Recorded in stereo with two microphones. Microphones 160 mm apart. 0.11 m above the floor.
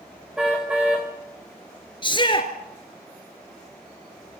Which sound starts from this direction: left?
A shout, at 2.0 s.